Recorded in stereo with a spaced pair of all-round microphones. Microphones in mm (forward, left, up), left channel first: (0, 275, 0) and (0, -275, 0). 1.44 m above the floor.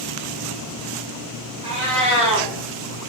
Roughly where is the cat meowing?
Centre.